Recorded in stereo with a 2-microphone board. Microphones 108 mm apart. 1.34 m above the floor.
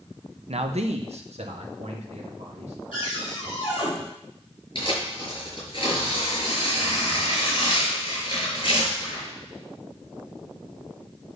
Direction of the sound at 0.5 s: 70° right (ahead or behind).